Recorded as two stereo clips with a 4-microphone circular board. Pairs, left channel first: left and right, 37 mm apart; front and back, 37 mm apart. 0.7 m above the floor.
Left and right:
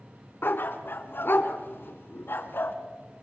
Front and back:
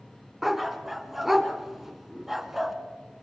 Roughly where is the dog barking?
Left.